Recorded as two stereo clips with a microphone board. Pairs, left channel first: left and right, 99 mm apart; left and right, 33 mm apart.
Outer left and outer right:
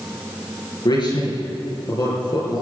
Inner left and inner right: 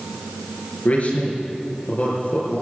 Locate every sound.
0.8 s a man speaking: 50° left (ahead or behind), 5 m